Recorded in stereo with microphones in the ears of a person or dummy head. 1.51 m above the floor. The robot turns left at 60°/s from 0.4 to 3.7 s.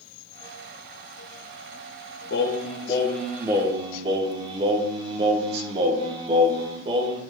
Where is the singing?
60° left, 1.1 m; by 7.2 s 25° right, 1.1 m.